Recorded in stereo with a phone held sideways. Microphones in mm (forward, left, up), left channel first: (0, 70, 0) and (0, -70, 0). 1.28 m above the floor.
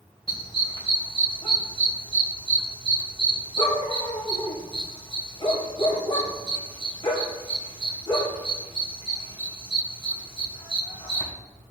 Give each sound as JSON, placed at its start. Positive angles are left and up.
{"t": 0.3, "sound": "a dog barking", "side_deg": 40, "distance_m": 2.5}